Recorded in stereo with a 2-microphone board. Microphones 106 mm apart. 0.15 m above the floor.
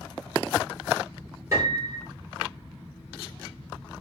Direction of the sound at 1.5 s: 30° right (ahead or behind).